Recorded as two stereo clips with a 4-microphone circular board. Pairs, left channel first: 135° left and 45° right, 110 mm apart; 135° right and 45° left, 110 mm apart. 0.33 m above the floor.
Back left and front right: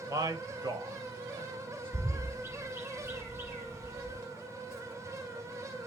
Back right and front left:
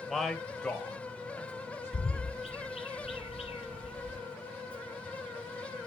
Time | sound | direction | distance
0.1 | a man speaking | 45° right | 1.5 m
1.9 | a bird | 115° right | 2 m